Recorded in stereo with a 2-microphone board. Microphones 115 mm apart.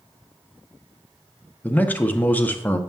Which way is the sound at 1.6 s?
15° left (ahead or behind).